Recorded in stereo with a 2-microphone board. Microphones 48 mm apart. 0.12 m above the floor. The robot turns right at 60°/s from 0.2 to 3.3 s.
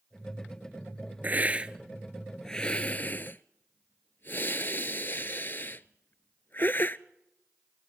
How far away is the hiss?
About 0.6 m.